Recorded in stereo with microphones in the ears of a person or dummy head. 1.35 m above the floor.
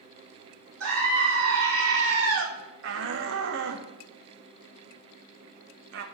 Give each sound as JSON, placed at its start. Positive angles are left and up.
{"t": 0.8, "sound": "a scream", "side_deg": -85, "distance_m": 2.5}
{"t": 2.8, "sound": "a shout", "side_deg": -65, "distance_m": 0.6}